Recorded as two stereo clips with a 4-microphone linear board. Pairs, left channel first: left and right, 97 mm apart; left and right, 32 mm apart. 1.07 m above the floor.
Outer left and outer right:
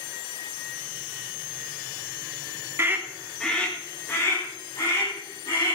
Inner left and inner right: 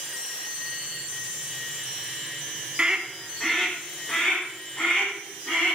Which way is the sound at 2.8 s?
25° right (ahead or behind).